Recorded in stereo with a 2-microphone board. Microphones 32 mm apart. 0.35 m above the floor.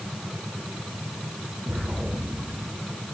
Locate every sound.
1.7 s an explosion: 60° right (ahead or behind), 6.5 m